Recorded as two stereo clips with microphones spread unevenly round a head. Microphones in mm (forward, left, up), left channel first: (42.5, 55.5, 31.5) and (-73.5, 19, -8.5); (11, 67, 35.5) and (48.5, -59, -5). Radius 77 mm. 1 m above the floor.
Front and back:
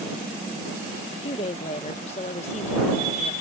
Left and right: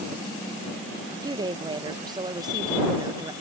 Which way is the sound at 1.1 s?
35° right.